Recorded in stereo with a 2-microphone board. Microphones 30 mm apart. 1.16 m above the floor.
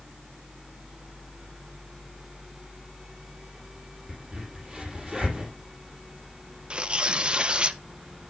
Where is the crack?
20° right (ahead or behind), 6 m.